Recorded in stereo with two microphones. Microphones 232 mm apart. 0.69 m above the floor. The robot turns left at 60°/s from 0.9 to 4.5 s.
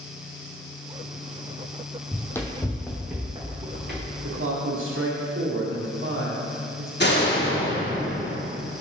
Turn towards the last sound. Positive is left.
turn(degrees=50)  # may be behind; listen again after turning